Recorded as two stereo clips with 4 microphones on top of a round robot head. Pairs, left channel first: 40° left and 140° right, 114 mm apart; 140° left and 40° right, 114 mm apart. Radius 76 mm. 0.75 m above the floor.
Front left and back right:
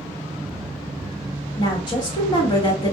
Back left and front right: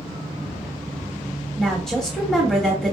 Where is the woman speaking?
55° left, 1.2 m.